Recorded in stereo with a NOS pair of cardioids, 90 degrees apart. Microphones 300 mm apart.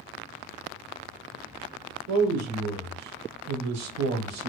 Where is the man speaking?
70° right, 0.8 m.